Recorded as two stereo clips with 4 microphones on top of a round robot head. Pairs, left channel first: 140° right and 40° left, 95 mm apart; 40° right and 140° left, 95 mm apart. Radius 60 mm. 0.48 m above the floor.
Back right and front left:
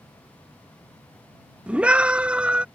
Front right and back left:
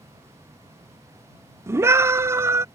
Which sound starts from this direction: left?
A scream, at 1.7 s.